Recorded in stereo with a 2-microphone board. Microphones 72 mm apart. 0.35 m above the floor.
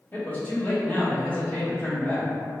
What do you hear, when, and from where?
0.1 s a man speaking: 30° left (ahead or behind), 1.7 m